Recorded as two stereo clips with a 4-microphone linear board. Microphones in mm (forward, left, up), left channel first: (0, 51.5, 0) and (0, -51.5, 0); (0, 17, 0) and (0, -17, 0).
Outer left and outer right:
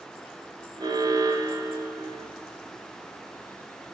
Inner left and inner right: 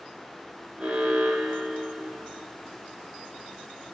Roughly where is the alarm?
Right.